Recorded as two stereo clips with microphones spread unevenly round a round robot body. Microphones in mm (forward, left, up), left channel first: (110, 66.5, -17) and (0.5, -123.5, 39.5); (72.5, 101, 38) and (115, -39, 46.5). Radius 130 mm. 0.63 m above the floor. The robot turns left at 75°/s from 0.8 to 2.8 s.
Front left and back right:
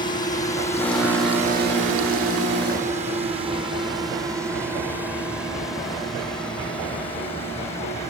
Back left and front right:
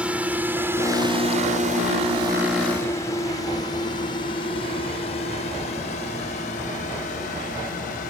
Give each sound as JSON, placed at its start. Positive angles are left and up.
{"t": 0.0, "sound": "a drone", "azimuth_deg": 5}